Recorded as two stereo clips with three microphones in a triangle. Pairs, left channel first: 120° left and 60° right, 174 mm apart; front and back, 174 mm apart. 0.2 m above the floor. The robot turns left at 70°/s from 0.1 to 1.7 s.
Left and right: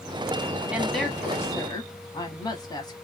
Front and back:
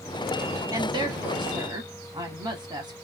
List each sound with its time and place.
0.7 s a woman speaking: 135° right, 1.2 m; by 2.9 s 155° left, 1.2 m